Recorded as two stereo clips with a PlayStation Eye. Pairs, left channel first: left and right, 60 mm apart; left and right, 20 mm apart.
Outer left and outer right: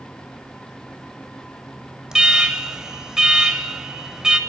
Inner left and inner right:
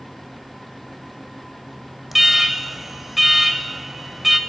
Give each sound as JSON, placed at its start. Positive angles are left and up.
{"t": 2.1, "sound": "an alarm", "side_deg": -10, "distance_m": 0.8}